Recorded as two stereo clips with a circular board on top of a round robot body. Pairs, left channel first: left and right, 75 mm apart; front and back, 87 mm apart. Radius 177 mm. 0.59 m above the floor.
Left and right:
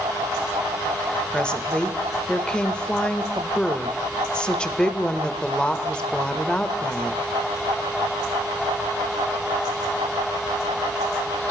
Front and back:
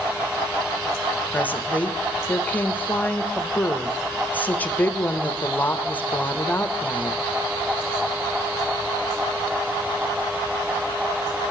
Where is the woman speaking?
35° left, 1.0 m.